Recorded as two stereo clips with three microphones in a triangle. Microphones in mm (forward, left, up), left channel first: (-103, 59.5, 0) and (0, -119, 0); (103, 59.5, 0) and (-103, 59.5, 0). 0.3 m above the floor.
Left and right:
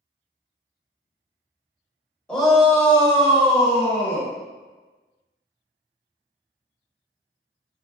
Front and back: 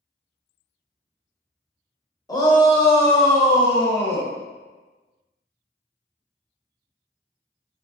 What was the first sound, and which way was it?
A shout, 40° left.